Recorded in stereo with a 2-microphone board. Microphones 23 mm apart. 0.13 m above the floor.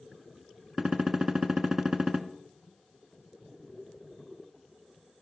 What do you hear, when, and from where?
0.8 s a gunshot: 25° right (ahead or behind), 0.7 m